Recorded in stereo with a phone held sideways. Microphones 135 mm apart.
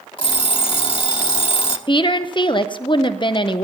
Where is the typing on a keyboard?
No typing on a keyboard in this recording.